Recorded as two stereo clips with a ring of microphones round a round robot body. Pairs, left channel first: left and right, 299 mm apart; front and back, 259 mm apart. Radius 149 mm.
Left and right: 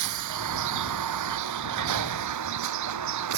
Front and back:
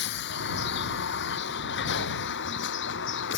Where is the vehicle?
60° right; by 3.4 s 55° right.